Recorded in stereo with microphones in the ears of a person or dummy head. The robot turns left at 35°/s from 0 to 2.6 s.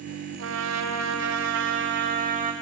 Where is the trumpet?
75° right, 1.9 m; by 2.5 s 150° right, 1.9 m.